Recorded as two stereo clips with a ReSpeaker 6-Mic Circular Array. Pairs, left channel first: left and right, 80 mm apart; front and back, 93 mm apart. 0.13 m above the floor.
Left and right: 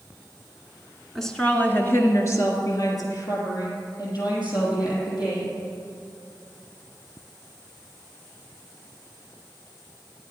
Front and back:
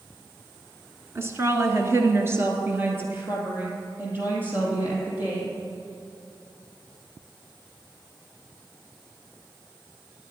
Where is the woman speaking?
175° left, 1.2 m; by 5.5 s 110° left, 5 m.